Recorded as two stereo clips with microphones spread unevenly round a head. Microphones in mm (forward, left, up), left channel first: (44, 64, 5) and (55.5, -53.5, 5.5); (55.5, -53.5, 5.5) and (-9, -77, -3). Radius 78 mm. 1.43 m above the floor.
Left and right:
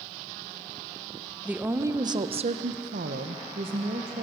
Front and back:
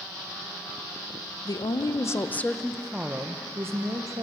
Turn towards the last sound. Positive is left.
turn(degrees=-120)